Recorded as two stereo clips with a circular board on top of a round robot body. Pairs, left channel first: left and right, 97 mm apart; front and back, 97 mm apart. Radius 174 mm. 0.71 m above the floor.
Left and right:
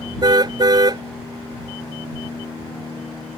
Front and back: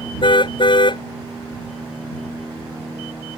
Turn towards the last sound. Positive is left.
turn(degrees=-40)